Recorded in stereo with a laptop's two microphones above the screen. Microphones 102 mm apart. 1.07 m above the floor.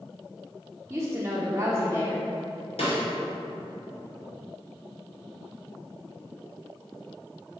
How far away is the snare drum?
About 0.9 m.